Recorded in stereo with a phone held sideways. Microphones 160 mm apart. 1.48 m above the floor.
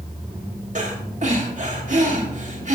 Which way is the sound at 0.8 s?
50° right (ahead or behind).